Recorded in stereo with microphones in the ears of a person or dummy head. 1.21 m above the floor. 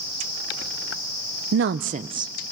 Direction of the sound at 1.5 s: 60° right (ahead or behind).